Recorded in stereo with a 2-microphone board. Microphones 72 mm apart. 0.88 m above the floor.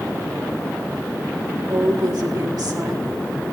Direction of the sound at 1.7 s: 70° right (ahead or behind).